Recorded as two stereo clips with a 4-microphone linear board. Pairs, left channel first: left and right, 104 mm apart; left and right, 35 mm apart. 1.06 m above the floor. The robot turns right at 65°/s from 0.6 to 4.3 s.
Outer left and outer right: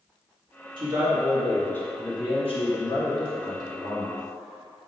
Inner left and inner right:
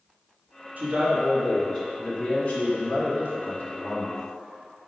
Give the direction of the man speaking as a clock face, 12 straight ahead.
2 o'clock.